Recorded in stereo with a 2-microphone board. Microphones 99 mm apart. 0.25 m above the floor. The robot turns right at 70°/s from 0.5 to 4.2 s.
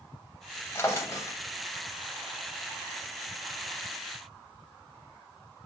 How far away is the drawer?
About 0.5 m.